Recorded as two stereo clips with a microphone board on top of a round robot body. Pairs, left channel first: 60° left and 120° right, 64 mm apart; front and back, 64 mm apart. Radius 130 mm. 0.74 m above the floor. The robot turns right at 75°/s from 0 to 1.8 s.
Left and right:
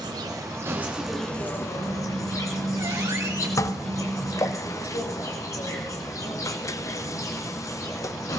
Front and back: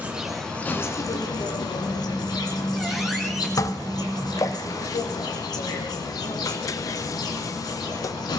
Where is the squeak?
95° right, 4 m.